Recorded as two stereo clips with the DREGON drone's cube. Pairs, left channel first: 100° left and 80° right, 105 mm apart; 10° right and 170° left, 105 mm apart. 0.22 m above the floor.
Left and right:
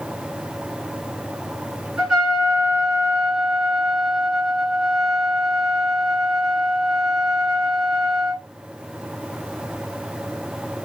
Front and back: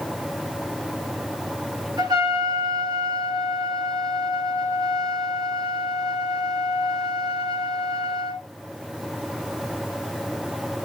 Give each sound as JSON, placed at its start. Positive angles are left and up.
{"t": 2.0, "sound": "a trumpet", "azimuth_deg": -160, "distance_m": 2.0}